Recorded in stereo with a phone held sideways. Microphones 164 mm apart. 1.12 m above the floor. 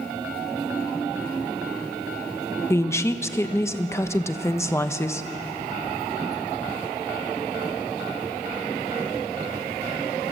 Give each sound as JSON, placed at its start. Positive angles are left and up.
{"t": 2.7, "sound": "a woman speaking", "side_deg": 15, "distance_m": 1.1}